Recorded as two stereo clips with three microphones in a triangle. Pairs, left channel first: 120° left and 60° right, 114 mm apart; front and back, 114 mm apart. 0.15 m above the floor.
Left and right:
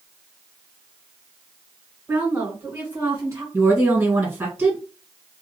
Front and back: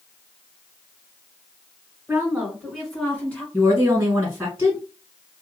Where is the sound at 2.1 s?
125° right, 2.0 m; by 3.4 s 55° right, 1.8 m.